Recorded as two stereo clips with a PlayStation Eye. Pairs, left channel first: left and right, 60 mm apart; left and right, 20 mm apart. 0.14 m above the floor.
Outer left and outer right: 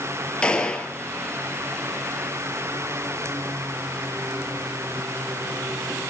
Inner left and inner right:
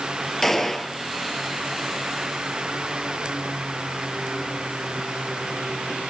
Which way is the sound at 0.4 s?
15° left (ahead or behind).